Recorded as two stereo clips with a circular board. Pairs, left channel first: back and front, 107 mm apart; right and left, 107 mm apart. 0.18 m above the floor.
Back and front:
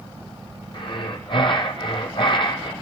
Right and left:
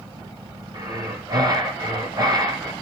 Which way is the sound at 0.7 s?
140° left.